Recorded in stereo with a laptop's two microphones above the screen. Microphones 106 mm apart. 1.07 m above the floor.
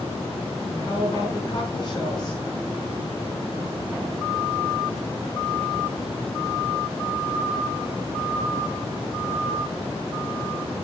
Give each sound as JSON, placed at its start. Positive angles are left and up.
{"t": 0.7, "sound": "a woman speaking", "side_deg": 45, "distance_m": 5.5}